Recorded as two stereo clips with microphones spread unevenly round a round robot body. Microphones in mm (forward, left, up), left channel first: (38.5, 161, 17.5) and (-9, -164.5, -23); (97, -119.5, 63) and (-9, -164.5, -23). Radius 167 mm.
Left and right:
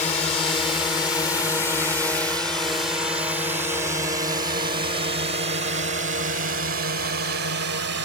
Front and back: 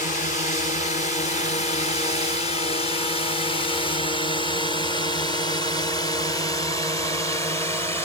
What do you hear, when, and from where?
0.0 s a drone: 30° left; by 8.1 s 90° right